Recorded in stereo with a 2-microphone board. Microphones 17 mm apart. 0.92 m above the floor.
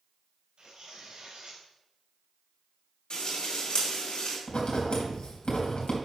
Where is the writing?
80° left, 3 m.